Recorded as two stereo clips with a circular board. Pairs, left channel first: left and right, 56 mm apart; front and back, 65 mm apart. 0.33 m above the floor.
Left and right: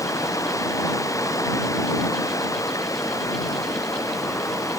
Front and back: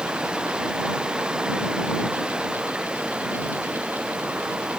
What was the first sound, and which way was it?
Running water, 105° left.